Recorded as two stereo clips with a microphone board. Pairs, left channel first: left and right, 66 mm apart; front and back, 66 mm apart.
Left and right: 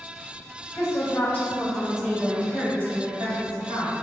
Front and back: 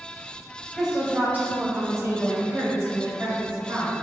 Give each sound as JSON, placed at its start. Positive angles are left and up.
{"t": 0.7, "sound": "a woman speaking", "azimuth_deg": 100, "distance_m": 0.7}